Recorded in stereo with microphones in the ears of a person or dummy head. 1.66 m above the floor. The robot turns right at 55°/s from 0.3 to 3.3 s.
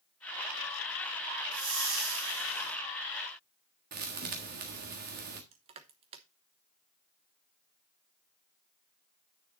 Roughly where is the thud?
Right.